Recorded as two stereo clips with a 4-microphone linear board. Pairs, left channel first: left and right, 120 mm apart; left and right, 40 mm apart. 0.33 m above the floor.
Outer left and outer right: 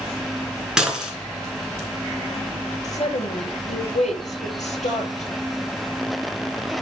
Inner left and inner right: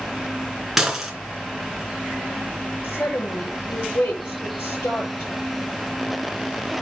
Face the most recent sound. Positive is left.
turn(degrees=80)